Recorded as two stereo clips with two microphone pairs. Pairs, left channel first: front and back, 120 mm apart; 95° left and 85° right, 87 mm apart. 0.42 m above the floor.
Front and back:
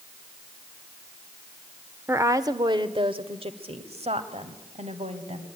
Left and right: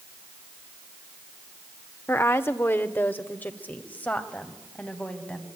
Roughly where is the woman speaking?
Behind left.